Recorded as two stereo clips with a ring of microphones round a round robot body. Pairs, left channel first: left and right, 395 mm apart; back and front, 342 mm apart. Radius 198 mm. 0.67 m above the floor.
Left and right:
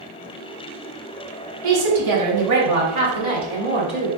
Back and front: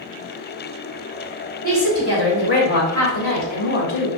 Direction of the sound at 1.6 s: 115° right.